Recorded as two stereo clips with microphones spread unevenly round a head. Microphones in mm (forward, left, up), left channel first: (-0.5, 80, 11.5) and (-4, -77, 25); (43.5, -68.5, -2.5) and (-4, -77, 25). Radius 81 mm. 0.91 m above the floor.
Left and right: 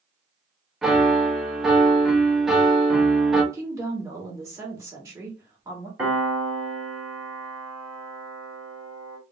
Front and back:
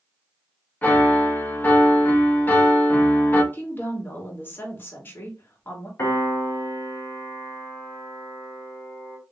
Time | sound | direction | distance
0.8 | a piano | straight ahead | 1.2 m
3.5 | a woman speaking | 20° right | 2.5 m
6.0 | a piano | 5° right | 2.5 m